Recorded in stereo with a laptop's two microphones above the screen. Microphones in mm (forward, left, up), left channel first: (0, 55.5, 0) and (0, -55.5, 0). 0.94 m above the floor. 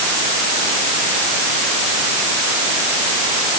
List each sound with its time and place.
Only background noise.